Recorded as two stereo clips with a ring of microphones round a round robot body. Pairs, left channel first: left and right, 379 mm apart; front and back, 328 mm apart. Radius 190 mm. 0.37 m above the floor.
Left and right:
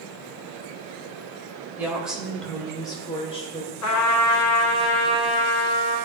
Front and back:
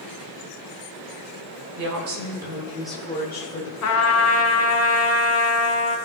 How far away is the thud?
No thud in this recording.